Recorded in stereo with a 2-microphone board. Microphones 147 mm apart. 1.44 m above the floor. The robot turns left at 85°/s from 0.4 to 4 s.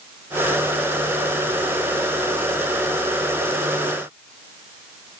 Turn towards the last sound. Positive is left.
No sound to turn to.